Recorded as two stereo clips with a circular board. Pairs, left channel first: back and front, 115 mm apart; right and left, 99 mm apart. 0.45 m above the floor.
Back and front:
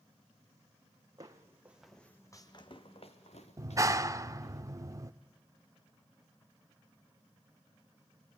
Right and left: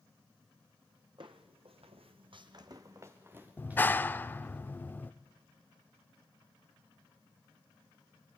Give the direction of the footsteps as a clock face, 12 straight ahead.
10 o'clock.